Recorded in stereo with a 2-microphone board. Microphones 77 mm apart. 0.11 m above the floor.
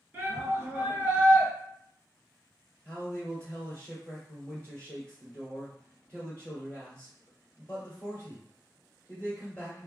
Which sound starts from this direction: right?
A shout, at 0.1 s.